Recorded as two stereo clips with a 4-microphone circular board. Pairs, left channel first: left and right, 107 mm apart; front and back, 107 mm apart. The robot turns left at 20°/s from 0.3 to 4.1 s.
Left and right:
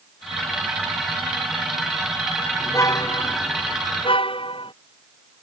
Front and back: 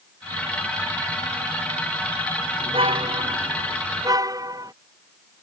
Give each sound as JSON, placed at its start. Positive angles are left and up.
{"t": 2.6, "sound": "a car horn", "azimuth_deg": 155}